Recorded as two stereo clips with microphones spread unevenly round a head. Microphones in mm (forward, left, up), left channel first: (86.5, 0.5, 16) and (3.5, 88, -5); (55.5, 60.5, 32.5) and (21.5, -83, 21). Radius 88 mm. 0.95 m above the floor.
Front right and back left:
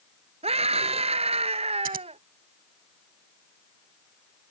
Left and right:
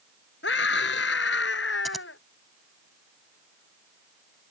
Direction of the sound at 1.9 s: 165° left.